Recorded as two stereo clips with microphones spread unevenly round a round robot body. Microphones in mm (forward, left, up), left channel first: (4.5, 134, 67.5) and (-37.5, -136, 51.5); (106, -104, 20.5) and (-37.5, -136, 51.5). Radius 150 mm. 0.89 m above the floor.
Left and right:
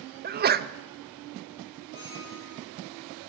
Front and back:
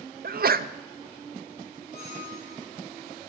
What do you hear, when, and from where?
0.2 s a sneeze: 150° right, 0.7 m
1.9 s a squeak: 35° left, 5.5 m